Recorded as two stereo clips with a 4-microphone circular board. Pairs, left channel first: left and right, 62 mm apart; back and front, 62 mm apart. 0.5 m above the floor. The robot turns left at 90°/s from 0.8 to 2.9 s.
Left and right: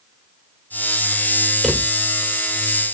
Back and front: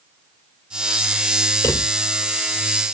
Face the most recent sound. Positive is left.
turn(degrees=55)